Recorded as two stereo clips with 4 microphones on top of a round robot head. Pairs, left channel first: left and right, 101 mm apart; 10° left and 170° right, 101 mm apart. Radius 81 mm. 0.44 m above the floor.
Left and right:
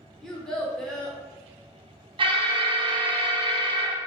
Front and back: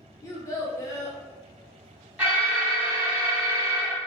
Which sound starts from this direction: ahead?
A child speaking, at 0.2 s.